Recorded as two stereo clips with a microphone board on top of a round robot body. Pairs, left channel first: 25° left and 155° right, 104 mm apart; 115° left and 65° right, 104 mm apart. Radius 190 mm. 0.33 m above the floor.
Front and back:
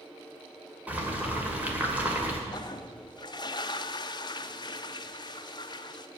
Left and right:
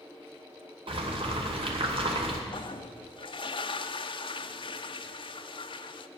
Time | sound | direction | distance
0.9 | boiling | 85° right | 2.5 m
2.5 | a toilet flushing | 75° left | 0.5 m